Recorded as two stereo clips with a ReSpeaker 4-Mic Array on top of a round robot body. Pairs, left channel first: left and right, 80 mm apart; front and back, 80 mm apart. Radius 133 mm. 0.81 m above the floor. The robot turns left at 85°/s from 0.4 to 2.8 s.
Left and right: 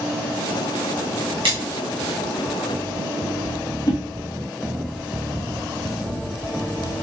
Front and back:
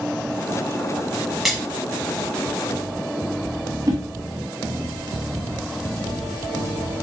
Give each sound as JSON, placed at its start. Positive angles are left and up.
{"t": 1.4, "sound": "a splash", "azimuth_deg": -90, "distance_m": 1.1}
{"t": 3.9, "sound": "a whoosh", "azimuth_deg": 135, "distance_m": 1.4}